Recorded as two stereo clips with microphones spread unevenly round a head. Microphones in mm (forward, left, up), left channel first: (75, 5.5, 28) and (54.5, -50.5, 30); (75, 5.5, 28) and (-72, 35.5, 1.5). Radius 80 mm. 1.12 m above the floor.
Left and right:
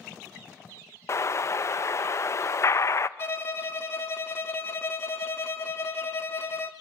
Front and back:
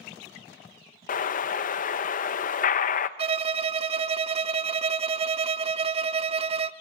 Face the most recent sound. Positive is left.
turn(degrees=125)